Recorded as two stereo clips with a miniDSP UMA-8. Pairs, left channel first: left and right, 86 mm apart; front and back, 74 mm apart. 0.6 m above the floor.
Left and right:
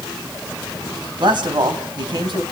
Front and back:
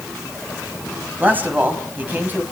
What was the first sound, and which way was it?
A man speaking, 115° right.